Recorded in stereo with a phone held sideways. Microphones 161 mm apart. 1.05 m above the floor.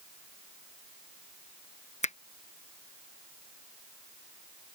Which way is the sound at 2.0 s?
45° left (ahead or behind).